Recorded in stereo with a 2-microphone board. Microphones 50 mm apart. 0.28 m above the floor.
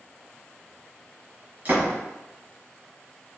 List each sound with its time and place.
1.6 s a door slam: 30° right (ahead or behind), 1.4 m